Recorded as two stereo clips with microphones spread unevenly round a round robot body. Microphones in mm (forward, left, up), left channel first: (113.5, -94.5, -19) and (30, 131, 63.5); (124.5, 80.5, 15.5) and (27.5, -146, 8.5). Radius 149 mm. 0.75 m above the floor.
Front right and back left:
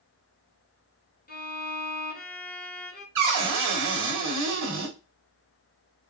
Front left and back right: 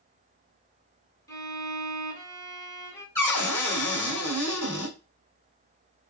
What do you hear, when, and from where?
1.3 s a violin: 10° right, 1.5 m
3.1 s a cupboard door: 145° left, 1.3 m